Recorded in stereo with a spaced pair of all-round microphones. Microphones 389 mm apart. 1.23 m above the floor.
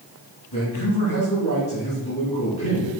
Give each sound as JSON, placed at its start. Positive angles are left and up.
{"t": 0.5, "sound": "a man speaking", "side_deg": 75, "distance_m": 3.0}